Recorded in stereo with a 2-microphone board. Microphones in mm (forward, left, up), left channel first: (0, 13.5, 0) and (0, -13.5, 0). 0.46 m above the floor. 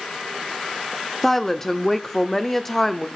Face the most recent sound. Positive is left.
turn(degrees=10)  # may be behind; listen again after turning